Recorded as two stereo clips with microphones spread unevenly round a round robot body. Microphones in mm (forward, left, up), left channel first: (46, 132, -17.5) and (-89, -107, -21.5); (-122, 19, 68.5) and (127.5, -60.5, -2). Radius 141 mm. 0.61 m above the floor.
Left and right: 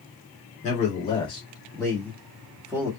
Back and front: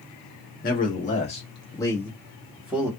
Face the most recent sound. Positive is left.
turn(degrees=-50)